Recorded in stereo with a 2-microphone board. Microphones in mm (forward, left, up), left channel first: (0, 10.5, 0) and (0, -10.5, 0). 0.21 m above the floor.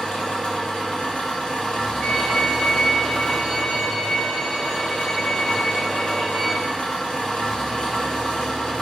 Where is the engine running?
55° left (ahead or behind), 2.5 m.